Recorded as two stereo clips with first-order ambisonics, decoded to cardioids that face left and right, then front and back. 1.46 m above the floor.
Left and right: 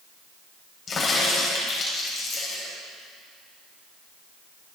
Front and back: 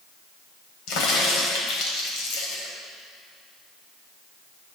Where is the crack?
30° left, 3.5 m.